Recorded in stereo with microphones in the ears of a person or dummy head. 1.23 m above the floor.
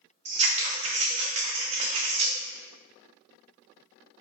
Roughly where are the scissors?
Right.